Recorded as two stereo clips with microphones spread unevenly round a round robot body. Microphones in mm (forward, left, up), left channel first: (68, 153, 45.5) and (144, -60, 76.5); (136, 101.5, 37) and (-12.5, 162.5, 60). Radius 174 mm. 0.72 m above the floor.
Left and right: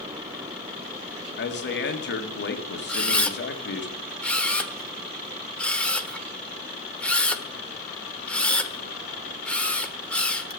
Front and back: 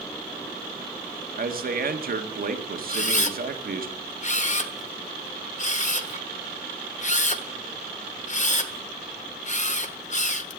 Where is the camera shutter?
25° left, 1.3 m.